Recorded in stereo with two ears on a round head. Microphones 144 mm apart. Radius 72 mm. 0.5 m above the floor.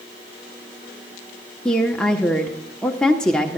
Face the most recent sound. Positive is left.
turn(degrees=5)  # may be behind; listen again after turning